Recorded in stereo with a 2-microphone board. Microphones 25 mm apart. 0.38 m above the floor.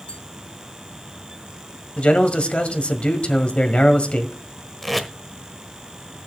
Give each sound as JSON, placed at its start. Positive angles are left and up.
{"t": 0.1, "sound": "tapping", "side_deg": 40, "distance_m": 3.0}
{"t": 2.0, "sound": "a man speaking", "side_deg": 55, "distance_m": 1.7}
{"t": 4.8, "sound": "tape being pulled", "side_deg": 0, "distance_m": 1.1}